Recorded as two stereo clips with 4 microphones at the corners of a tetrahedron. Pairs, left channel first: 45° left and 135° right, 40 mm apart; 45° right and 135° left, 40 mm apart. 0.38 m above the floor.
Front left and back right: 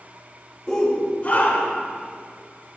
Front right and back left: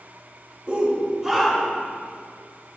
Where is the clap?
I don't hear a clap.